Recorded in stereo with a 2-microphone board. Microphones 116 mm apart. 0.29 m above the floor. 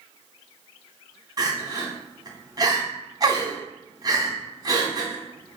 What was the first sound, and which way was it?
Crying, 35° right (ahead or behind).